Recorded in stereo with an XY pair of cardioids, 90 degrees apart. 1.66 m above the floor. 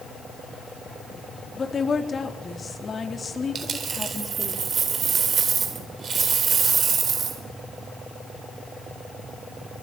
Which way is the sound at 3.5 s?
55° right.